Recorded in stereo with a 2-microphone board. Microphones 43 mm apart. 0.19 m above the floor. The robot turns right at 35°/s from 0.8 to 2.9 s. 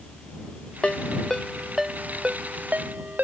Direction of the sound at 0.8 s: 25° left (ahead or behind).